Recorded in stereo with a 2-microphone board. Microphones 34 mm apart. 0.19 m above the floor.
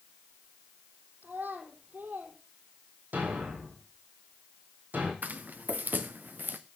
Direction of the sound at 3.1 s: 60° right (ahead or behind).